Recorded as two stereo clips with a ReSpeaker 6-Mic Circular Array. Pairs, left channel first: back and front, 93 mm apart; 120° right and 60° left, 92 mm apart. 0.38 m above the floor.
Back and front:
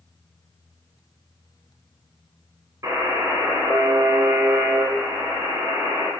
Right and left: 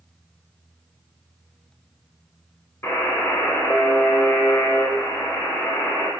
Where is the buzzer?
55° right, 0.8 m.